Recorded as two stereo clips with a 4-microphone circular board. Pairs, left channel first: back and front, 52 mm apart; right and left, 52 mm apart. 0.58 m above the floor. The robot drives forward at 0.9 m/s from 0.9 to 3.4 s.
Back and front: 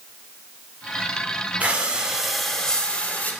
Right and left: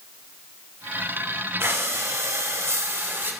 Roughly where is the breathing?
Ahead left.